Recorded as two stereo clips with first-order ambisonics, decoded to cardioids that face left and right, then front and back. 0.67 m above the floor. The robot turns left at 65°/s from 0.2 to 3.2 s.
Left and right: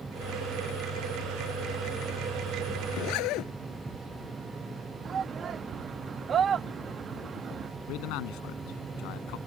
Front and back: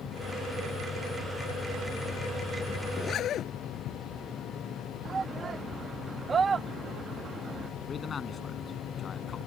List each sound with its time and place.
2.9 s a zipper: 75° left; by 3.5 s 55° left
5.0 s a shout: 130° right
7.9 s a man speaking: 70° left